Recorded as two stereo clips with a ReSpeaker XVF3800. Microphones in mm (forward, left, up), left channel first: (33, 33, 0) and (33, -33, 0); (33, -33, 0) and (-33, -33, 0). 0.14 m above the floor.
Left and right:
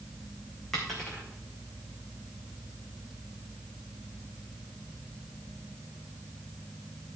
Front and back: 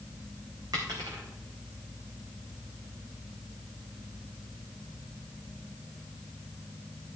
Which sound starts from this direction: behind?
A dropped coin, at 0.7 s.